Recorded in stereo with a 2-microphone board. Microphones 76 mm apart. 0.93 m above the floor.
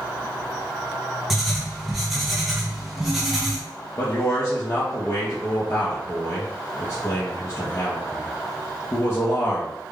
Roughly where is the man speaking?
Left.